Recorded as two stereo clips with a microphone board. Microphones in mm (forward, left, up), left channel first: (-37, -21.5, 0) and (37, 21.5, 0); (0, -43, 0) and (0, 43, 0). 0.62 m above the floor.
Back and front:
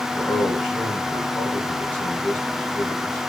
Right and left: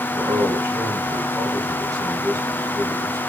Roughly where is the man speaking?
Behind left.